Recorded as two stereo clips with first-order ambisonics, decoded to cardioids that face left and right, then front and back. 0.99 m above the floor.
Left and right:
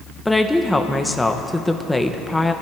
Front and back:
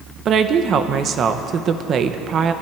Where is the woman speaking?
170° left, 0.7 m.